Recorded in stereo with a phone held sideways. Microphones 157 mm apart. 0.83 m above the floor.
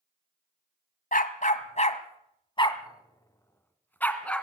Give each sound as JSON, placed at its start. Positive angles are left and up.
{"t": 1.1, "sound": "a dog barking", "side_deg": 60, "distance_m": 1.5}